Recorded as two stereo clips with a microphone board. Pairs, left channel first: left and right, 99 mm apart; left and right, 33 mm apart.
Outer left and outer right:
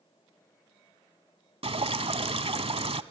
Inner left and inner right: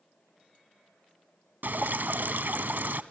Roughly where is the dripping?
Right.